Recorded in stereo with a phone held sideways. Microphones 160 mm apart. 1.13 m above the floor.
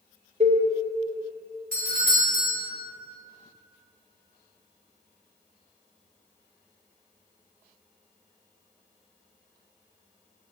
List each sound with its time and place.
0.4 s a cowbell: 45° right (ahead or behind), 0.7 m
1.7 s a doorbell: 60° right (ahead or behind), 1.5 m